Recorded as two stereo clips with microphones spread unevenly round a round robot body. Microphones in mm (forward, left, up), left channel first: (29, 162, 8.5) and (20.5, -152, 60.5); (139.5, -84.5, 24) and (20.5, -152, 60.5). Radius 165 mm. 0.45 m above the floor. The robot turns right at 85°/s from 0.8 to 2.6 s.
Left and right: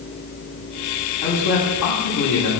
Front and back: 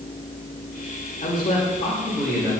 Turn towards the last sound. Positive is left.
turn(degrees=135)